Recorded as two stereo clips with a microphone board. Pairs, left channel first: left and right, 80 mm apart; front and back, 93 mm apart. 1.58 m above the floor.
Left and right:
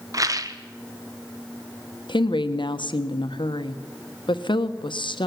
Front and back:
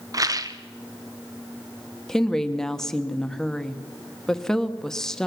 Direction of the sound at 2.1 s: 85° left.